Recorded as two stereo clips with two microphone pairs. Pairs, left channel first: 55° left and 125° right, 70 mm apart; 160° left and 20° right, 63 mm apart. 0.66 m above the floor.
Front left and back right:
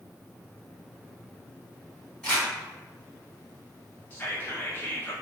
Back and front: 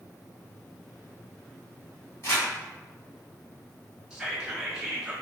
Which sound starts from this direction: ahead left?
Whispering, at 4.1 s.